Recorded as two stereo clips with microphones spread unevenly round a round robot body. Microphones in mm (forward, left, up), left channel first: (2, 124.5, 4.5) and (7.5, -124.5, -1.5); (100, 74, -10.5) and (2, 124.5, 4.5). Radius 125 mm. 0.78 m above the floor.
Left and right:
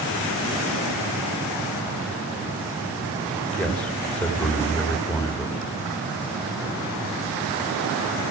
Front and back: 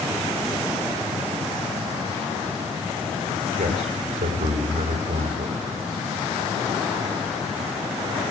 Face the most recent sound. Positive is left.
turn(degrees=175)